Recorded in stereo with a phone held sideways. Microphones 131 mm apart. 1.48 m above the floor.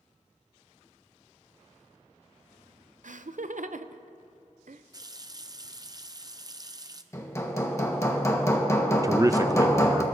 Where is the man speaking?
25° right (ahead or behind), 0.5 m.